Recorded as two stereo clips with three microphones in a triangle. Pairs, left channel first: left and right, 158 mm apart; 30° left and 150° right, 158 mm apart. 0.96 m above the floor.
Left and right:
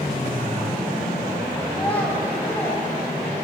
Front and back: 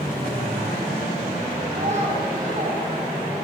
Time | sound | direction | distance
1.7 | a child speaking | 170° left | 3.5 m